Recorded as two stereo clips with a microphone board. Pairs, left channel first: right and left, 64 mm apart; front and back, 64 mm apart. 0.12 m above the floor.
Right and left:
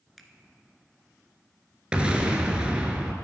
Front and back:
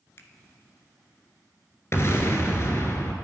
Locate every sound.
0.2 s a finger snap: straight ahead, 1.0 m
1.9 s an explosion: 25° left, 1.3 m